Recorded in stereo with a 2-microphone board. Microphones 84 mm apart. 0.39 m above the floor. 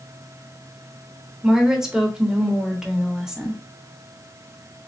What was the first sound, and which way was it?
A woman speaking, 10° right (ahead or behind).